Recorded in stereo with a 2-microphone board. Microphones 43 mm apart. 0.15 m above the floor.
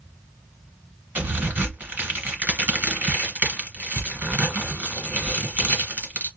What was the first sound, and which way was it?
A crack, 45° right (ahead or behind).